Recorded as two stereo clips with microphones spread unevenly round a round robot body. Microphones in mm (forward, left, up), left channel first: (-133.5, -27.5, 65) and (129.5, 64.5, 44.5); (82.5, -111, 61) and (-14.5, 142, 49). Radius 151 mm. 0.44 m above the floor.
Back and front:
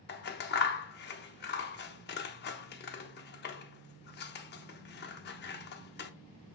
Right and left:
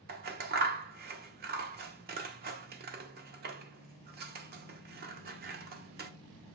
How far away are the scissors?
About 0.7 m.